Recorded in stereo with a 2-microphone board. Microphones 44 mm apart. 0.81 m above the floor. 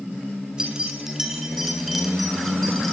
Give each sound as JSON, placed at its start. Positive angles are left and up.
{"t": 0.6, "sound": "keys jangling", "side_deg": -20, "distance_m": 5.0}